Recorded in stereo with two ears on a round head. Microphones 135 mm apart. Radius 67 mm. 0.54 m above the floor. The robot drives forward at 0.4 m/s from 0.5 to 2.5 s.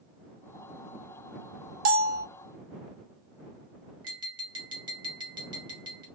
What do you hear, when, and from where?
1.9 s a bell: 60° right (ahead or behind), 0.7 m; by 2.3 s 70° right (ahead or behind), 0.7 m
4.0 s tapping: 30° right (ahead or behind), 1.7 m